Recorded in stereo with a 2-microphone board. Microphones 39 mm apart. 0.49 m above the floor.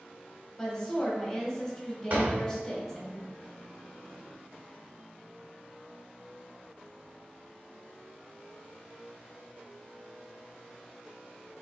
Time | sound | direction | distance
0.6 | a woman speaking | 10° left (ahead or behind) | 1.4 m
2.1 | a door slam | 55° right (ahead or behind) | 1.2 m